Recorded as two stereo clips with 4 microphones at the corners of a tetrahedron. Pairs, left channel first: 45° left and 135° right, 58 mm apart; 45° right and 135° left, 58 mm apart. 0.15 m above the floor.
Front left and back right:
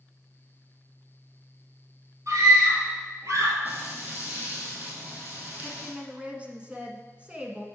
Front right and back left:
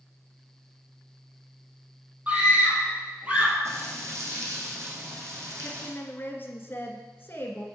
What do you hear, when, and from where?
2.3 s a scream: 160° right, 3.5 m
3.6 s frying: 165° left, 2.5 m
5.6 s a woman speaking: 75° right, 1.4 m